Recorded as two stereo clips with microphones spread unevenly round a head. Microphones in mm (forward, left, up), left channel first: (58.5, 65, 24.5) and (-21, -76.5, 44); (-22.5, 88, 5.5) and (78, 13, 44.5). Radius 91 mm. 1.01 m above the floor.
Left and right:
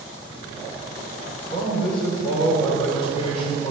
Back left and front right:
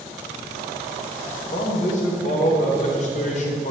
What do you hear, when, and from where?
1.5 s a man speaking: 125° left, 3.5 m